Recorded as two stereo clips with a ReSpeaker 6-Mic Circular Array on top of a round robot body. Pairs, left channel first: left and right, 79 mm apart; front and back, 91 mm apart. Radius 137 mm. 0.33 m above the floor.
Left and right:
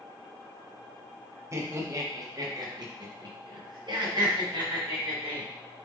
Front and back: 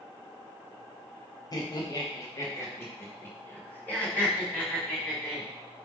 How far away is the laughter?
About 2 m.